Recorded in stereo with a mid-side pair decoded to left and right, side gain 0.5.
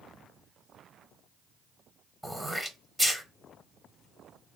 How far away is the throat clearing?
About 0.8 m.